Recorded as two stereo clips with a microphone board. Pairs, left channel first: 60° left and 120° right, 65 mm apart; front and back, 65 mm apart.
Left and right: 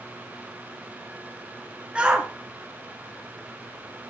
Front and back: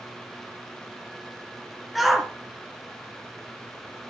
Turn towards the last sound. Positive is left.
turn(degrees=-95)